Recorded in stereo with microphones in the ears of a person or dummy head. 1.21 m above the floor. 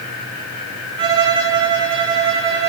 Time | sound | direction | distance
1.0 | a violin | 25° right (ahead or behind) | 0.8 m